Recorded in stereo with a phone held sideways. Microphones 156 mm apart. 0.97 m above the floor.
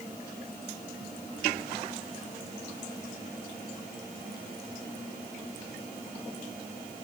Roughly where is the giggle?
I don't hear a giggle.